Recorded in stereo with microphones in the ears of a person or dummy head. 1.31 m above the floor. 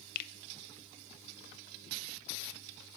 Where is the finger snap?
55° left (ahead or behind), 0.5 m.